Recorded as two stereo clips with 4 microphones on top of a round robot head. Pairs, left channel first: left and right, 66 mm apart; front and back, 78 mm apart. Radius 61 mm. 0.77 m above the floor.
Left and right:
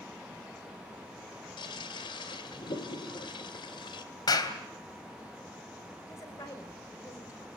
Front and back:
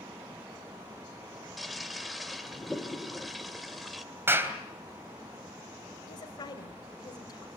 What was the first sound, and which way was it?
A toilet flushing, 90° left.